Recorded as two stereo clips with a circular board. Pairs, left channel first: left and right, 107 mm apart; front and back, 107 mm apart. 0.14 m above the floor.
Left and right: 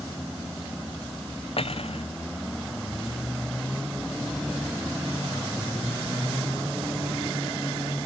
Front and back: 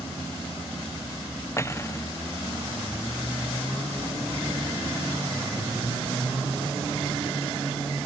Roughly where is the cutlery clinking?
Ahead left.